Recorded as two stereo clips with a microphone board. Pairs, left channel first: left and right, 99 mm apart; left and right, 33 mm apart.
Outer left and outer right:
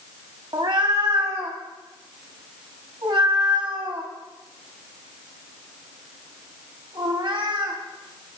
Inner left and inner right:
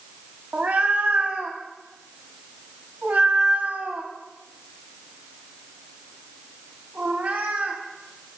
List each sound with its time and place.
0.5 s a cat meowing: 55° right (ahead or behind), 1.0 m